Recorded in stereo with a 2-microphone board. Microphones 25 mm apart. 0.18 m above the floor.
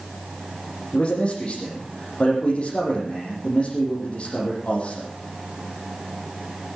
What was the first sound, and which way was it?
A man speaking, 45° left (ahead or behind).